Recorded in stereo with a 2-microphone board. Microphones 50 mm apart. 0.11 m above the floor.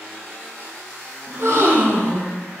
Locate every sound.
1.3 s a gasp: 65° right (ahead or behind), 4 m